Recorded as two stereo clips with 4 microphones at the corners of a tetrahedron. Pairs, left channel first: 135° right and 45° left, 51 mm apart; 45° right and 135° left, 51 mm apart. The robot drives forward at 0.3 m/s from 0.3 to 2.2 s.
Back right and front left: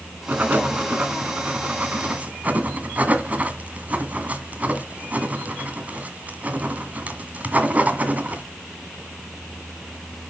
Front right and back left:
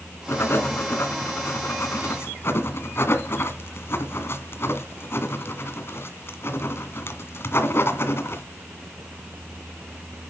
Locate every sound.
0.3 s writing: 10° right, 2.5 m; by 8.4 s 15° right, 1.9 m